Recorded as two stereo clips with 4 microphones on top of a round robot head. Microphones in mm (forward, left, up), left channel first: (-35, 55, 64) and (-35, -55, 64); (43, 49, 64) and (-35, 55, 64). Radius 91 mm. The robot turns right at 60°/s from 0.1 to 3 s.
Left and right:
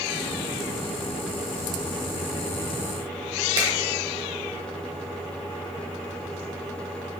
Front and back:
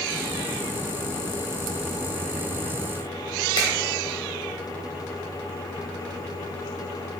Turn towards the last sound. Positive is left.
turn(degrees=-40)